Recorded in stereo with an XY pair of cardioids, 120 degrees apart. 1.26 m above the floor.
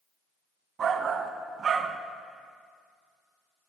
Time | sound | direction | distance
0.8 | a shout | 45° right | 1.2 m